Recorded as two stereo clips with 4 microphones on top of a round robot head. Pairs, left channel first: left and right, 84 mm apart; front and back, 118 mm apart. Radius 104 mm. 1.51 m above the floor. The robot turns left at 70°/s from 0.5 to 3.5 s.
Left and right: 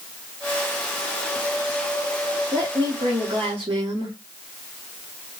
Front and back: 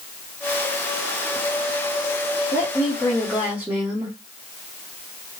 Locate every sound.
2.5 s a woman speaking: 30° right, 1.0 m; by 4.2 s 100° right, 1.0 m